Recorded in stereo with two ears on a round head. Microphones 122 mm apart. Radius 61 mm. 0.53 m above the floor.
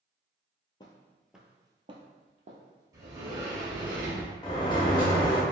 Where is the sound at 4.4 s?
30° left (ahead or behind), 0.6 m.